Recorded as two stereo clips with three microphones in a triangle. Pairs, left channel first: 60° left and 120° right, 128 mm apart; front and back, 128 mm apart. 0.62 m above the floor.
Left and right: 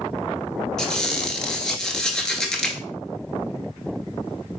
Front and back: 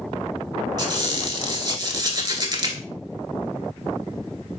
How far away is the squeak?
About 0.7 m.